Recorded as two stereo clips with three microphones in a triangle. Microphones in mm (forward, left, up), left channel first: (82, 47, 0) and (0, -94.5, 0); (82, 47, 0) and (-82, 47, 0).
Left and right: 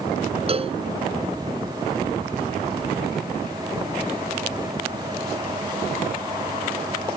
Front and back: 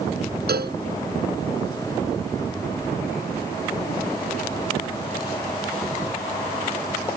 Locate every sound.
0.5 s a cowbell: 175° right